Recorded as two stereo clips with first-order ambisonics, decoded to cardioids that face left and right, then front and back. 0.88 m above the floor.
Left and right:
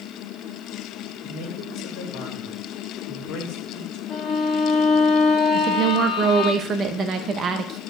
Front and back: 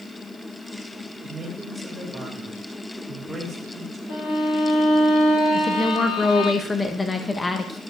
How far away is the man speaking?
About 2.5 m.